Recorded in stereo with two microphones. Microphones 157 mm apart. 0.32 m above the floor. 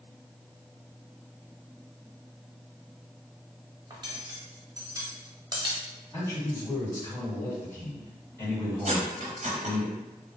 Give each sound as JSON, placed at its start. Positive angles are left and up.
{"t": 3.9, "sound": "cutlery clinking", "side_deg": -25, "distance_m": 0.7}
{"t": 6.1, "sound": "a man speaking", "side_deg": 20, "distance_m": 1.8}
{"t": 8.8, "sound": "cutlery clinking", "side_deg": -55, "distance_m": 0.8}